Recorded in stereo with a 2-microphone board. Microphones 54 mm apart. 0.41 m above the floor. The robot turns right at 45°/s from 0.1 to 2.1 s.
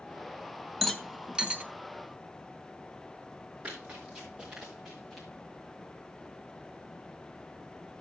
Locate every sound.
0.8 s a rattle: 10° left (ahead or behind), 0.9 m; by 1.6 s 25° right (ahead or behind), 0.9 m
3.6 s running footsteps: 25° right (ahead or behind), 4.5 m; by 5.3 s centre (ahead or behind), 3.5 m